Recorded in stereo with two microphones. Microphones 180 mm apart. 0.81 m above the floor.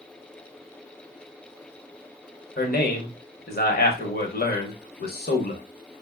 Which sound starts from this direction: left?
A man speaking, at 2.6 s.